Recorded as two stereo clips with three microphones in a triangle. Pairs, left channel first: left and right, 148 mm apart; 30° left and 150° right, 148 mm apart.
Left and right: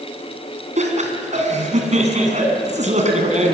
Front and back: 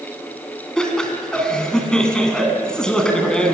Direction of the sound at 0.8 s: 55° right.